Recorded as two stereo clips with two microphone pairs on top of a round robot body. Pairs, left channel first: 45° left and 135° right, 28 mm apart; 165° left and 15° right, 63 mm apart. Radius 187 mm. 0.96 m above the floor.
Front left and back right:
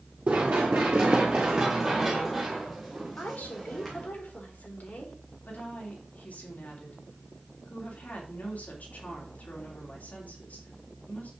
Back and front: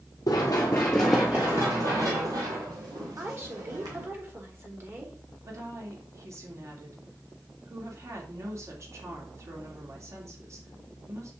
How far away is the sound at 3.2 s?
About 3.5 m.